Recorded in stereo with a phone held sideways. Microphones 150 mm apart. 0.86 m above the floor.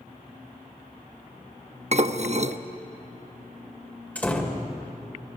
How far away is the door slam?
About 2.5 m.